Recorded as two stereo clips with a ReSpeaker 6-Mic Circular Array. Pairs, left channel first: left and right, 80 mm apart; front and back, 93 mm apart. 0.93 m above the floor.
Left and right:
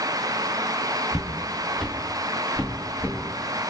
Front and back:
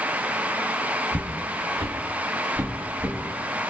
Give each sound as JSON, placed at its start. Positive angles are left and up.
{"t": 1.1, "sound": "footsteps", "azimuth_deg": -165, "distance_m": 1.5}